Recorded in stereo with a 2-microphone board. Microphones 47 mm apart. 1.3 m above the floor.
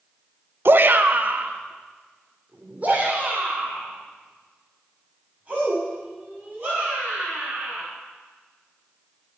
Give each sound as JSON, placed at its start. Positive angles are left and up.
{"t": 0.7, "sound": "a shout", "side_deg": -55, "distance_m": 0.7}